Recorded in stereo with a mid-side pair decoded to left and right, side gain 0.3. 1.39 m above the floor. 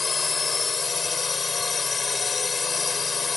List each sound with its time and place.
0.0 s a drone: 45° left